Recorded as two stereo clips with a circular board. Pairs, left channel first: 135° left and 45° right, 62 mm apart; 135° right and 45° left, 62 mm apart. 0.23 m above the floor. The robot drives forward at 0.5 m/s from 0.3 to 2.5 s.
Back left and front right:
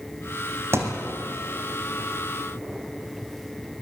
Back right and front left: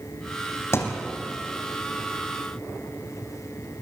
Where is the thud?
90° right, 4 m.